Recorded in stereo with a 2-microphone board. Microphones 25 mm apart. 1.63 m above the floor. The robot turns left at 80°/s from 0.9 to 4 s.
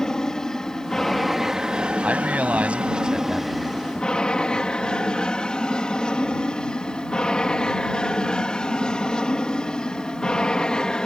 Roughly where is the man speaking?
Ahead right.